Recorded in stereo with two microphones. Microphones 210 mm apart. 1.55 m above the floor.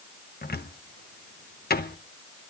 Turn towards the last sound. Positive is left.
turn(degrees=50)  # may be behind; listen again after turning